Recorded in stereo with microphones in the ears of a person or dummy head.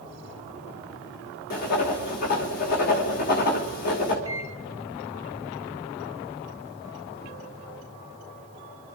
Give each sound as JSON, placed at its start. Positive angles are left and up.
{"t": 1.5, "sound": "writing", "side_deg": 45, "distance_m": 2.0}
{"t": 4.2, "sound": "a microwave", "side_deg": 15, "distance_m": 1.6}